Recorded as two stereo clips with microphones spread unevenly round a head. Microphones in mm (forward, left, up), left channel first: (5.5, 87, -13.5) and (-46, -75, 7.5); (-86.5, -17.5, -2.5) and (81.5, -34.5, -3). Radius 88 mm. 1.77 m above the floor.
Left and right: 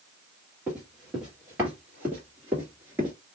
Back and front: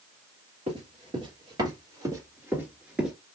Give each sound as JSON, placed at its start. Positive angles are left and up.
{"t": 0.7, "sound": "running footsteps", "azimuth_deg": -35, "distance_m": 2.5}